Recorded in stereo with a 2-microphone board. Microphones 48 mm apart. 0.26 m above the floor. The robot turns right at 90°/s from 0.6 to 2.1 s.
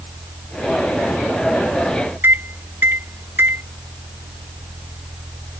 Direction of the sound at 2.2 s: 45° right (ahead or behind).